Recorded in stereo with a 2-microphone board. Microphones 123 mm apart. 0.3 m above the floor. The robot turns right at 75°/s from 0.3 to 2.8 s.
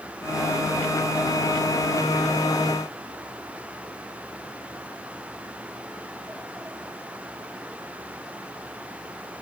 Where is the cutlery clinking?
I don't hear cutlery clinking.